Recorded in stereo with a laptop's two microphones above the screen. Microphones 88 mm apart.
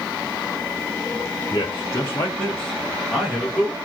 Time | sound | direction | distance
1.5 | a man speaking | 45° left (ahead or behind) | 0.8 m